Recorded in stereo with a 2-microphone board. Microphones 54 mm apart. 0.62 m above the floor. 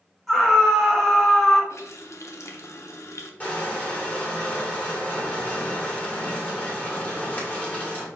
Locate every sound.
0.3 s a scream: 5° left (ahead or behind), 1.4 m
1.7 s a running tap: 60° left (ahead or behind), 0.6 m
3.4 s crushing: 30° left (ahead or behind), 1.5 m